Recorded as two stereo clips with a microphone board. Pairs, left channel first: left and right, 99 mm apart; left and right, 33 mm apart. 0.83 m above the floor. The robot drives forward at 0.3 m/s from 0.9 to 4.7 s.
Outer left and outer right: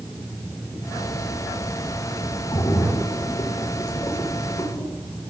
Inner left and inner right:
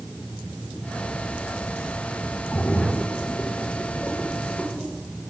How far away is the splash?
About 1.5 m.